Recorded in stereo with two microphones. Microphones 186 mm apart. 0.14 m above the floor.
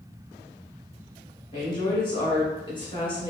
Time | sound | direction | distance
1.5 | a woman speaking | 30° left (ahead or behind) | 1.3 m